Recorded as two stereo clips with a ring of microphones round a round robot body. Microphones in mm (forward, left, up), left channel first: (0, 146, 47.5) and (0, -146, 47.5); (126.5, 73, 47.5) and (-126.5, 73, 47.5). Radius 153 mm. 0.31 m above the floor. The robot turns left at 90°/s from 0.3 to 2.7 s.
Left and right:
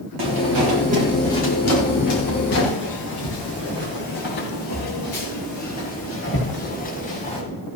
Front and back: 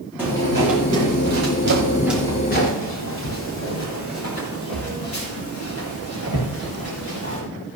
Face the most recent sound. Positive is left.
turn(degrees=25)